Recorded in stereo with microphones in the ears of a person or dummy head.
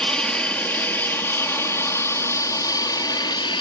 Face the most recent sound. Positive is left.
turn(degrees=30)  # may be behind; listen again after turning